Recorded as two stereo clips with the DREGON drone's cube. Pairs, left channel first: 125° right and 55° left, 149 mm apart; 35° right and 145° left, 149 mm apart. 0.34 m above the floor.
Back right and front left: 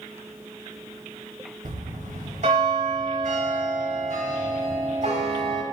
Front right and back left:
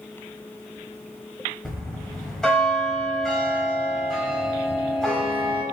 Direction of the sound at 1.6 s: 50° left.